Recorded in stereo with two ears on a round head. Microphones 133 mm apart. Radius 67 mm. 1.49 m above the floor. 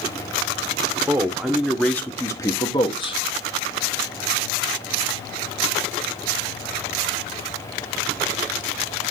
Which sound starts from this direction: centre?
A man speaking, at 1.1 s.